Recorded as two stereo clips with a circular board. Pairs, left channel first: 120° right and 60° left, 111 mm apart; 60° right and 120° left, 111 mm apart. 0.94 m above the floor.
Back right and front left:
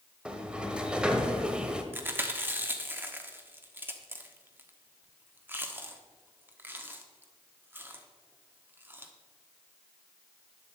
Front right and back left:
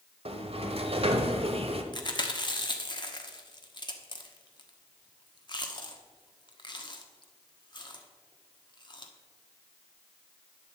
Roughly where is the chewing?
Ahead.